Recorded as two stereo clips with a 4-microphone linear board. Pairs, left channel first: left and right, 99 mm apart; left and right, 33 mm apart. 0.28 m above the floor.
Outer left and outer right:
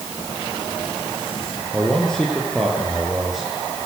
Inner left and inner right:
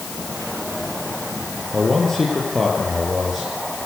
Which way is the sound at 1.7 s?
10° left (ahead or behind).